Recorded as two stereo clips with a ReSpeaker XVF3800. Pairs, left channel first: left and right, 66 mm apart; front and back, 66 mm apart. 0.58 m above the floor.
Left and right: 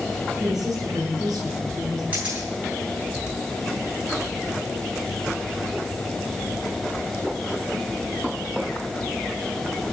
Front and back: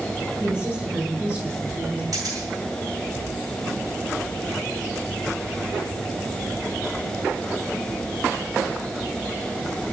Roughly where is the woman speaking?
Behind right.